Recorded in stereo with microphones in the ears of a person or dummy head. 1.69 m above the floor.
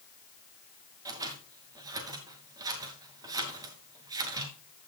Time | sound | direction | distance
1.1 | scissors | 20° right (ahead or behind) | 2.5 m